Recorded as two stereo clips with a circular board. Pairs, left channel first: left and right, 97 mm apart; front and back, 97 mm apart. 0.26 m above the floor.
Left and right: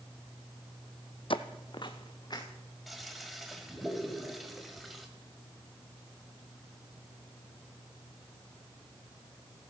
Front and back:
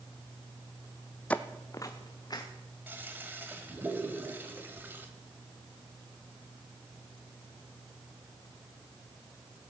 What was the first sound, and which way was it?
Footsteps, 75° left.